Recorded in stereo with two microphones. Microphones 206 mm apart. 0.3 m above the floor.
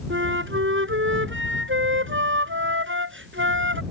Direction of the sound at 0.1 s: 75° right (ahead or behind).